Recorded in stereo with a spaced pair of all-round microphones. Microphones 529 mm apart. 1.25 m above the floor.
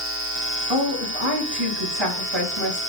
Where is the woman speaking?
55° right (ahead or behind), 4.5 m.